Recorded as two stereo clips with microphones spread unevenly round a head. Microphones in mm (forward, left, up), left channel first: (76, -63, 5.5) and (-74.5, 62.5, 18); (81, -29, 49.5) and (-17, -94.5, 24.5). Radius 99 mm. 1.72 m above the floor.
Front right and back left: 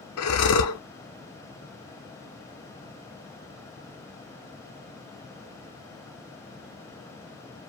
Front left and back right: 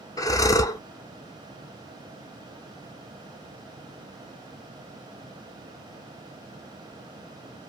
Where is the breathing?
30° right, 0.6 m.